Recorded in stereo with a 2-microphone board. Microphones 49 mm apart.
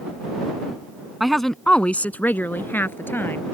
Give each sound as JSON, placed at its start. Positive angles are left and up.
{"t": 1.2, "sound": "a woman speaking", "side_deg": -5}